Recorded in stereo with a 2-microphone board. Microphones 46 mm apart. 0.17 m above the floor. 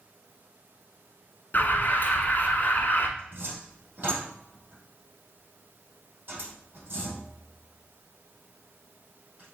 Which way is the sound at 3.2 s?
40° right (ahead or behind).